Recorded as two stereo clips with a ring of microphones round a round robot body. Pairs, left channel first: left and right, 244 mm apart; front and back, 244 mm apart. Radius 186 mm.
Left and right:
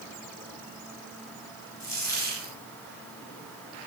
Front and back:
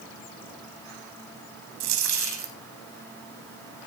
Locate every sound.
1.8 s a dropped coin: 175° left, 2.5 m